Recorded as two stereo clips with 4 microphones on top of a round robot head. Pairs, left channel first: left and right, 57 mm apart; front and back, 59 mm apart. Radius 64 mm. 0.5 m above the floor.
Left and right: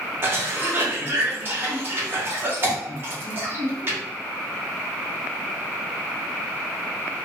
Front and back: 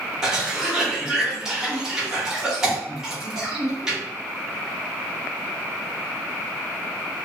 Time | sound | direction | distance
0.2 | a cough | 100° right | 1.1 m